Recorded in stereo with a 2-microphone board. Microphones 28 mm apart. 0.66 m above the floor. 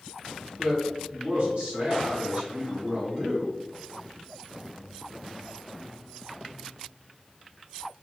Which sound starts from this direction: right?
A man speaking, at 0.6 s.